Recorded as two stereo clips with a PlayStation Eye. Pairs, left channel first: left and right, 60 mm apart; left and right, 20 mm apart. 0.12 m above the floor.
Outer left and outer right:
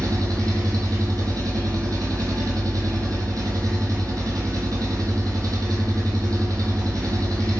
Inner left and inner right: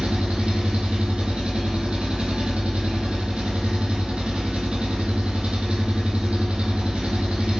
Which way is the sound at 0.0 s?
75° right (ahead or behind).